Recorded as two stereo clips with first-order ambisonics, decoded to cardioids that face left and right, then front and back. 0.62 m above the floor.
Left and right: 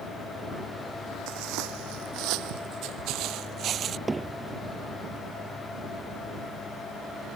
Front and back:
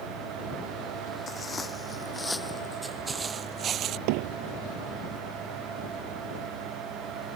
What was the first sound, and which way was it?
Footsteps, 70° right.